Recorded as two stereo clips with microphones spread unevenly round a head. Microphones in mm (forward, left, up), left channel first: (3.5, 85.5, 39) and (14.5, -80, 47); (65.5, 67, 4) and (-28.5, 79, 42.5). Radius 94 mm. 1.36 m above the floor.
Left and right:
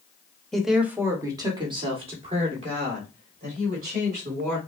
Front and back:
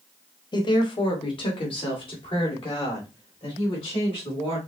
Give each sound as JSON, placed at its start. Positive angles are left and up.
{"t": 0.5, "sound": "a woman speaking", "azimuth_deg": 10, "distance_m": 1.0}